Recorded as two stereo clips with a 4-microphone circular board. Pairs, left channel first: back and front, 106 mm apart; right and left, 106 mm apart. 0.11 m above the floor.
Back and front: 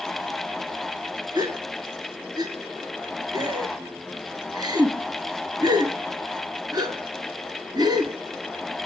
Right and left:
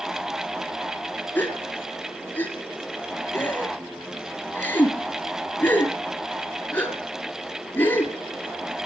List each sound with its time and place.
1.4 s a gasp: 25° right, 1.4 m